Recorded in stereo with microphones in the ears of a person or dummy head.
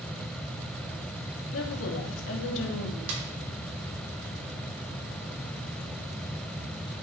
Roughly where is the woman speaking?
Left.